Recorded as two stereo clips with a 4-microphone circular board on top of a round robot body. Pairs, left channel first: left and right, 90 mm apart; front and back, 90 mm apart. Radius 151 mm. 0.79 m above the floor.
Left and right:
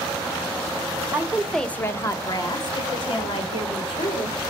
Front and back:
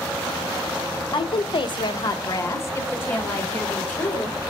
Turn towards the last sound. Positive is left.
turn(degrees=75)